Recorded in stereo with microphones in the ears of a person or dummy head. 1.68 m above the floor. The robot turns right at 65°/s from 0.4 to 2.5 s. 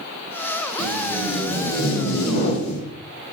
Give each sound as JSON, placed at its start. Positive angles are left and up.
{"t": 0.8, "sound": "tape being pulled", "azimuth_deg": -35, "distance_m": 3.5}